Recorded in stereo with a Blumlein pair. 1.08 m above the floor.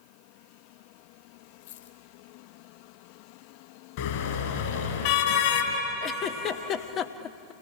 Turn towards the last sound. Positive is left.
turn(degrees=30)